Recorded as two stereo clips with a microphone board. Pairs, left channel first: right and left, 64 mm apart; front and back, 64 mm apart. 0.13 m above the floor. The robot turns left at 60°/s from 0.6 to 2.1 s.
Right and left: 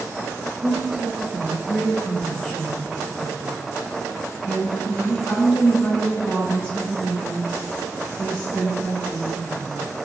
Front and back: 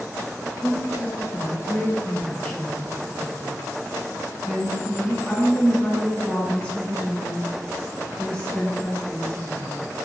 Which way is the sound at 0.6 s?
40° left.